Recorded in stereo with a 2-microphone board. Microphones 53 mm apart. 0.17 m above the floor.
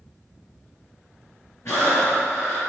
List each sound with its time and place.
1.6 s breathing: 65° left (ahead or behind), 3 m